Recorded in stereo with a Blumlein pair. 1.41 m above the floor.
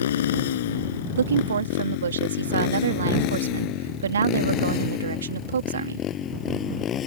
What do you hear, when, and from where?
0.0 s a motorcycle: 60° left; by 7.1 s 25° left
1.2 s a woman speaking: 70° right